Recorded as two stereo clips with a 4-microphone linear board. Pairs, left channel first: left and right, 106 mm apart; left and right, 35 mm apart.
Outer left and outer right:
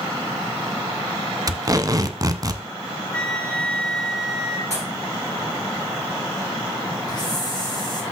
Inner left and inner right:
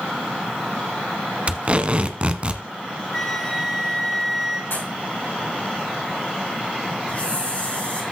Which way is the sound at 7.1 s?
40° left (ahead or behind).